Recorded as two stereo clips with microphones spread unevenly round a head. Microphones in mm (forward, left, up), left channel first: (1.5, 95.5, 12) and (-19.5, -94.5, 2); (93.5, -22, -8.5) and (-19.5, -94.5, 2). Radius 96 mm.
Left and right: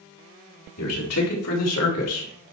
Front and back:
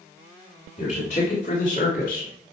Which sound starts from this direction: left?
A man speaking, at 0.8 s.